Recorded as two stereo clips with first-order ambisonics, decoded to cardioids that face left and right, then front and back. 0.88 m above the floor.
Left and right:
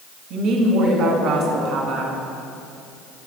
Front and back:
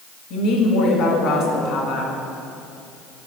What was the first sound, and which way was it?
A woman speaking, 40° right.